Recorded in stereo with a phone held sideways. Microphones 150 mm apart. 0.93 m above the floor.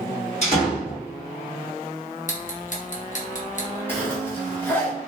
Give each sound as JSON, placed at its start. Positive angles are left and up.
{"t": 0.4, "sound": "a door slam", "side_deg": 45, "distance_m": 1.6}
{"t": 2.3, "sound": "ticking", "side_deg": 55, "distance_m": 0.8}
{"t": 3.9, "sound": "a zipper", "side_deg": 15, "distance_m": 1.2}